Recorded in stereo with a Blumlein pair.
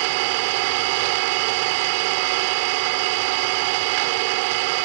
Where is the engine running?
45° right.